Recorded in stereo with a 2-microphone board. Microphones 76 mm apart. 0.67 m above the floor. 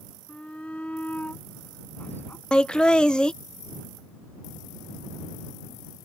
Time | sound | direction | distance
0.3 | a shout | 15° left (ahead or behind) | ?
2.5 | laughter | 10° left (ahead or behind) | ?